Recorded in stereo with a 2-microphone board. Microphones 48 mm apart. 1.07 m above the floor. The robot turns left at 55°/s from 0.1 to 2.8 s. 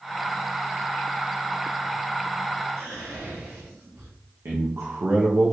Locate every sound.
2.8 s whispering: 70° right (ahead or behind), 1.8 m
4.5 s a man speaking: 65° right (ahead or behind), 0.6 m